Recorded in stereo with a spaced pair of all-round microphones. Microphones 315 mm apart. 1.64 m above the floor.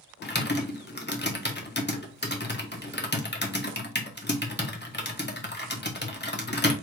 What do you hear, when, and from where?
0.2 s typing on a keyboard: 35° left (ahead or behind), 0.9 m